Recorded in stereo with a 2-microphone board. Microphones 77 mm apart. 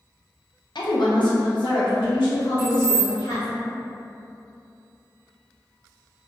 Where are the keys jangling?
55° left (ahead or behind), 1.5 m.